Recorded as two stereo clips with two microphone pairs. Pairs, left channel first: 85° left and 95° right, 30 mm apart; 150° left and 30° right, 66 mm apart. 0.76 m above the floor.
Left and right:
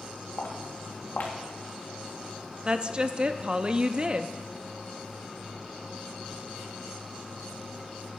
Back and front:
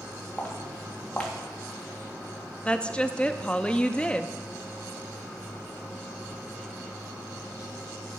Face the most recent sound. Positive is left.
turn(degrees=-145)